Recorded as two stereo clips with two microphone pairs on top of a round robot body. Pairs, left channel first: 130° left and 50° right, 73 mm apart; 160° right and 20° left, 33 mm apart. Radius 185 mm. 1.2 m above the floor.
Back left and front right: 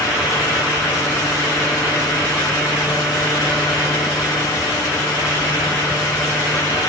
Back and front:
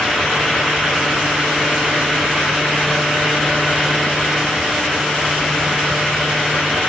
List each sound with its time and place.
Only background noise.